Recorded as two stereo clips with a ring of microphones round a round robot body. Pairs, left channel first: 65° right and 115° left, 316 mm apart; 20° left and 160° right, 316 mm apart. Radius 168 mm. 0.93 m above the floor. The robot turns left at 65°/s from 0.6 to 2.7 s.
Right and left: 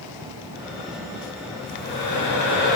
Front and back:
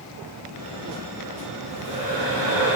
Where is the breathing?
60° right, 5.5 m; by 2.8 s 135° right, 5.5 m.